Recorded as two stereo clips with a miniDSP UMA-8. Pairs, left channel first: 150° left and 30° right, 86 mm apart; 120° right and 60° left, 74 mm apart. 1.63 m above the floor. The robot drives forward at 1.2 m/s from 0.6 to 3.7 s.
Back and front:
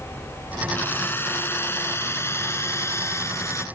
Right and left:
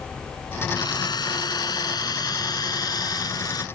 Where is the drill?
145° right; by 3.6 s 155° right.